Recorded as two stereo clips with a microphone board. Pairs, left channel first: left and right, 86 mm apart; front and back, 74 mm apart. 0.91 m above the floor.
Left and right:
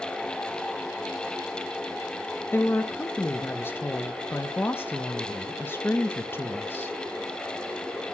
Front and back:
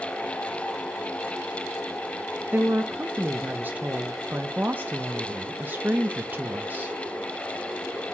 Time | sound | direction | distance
2.5 | a woman speaking | 135° left | 0.8 m